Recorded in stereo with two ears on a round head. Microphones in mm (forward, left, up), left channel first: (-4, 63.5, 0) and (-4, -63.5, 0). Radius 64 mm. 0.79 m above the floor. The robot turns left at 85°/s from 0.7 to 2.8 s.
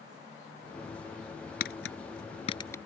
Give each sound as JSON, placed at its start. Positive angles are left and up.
{"t": 1.6, "sound": "tapping", "side_deg": 65}